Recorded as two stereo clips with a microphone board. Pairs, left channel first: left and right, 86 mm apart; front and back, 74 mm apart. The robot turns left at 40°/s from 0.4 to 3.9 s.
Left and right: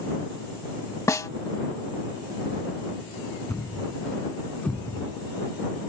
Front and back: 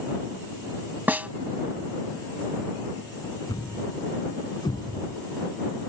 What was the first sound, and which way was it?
A snare drum, 125° left.